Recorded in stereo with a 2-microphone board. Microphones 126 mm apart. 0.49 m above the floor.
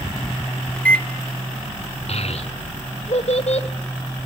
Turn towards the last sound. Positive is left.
turn(degrees=55)  # may be behind; listen again after turning